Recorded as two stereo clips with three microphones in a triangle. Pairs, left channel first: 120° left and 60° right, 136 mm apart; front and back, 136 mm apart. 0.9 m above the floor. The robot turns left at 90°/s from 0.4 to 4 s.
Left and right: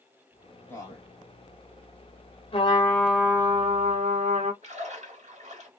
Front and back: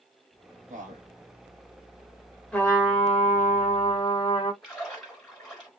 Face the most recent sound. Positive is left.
turn(degrees=-85)